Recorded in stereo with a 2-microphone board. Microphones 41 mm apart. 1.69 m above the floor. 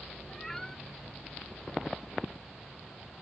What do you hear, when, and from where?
0.3 s a cat meowing: 10° left (ahead or behind)